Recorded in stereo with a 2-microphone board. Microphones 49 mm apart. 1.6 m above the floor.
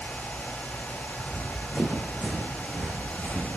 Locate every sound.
1.2 s running footsteps: 20° right (ahead or behind), 7 m; by 3.5 s 30° right (ahead or behind), 5.5 m